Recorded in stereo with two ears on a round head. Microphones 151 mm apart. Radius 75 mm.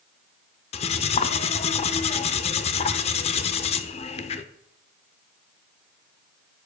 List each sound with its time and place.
0.7 s cutlery clinking: 35° left (ahead or behind), 0.6 m